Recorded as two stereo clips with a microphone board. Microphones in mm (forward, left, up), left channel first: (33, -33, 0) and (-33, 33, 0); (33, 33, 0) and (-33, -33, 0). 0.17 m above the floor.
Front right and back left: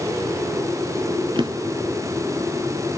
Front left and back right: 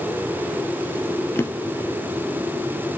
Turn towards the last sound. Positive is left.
turn(degrees=105)